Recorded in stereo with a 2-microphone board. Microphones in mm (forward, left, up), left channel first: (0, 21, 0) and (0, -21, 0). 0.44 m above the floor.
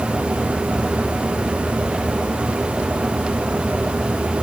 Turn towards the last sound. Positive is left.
No sound to turn to.